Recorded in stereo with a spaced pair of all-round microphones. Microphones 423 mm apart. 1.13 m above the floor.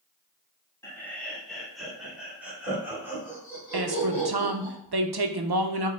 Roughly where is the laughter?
Centre.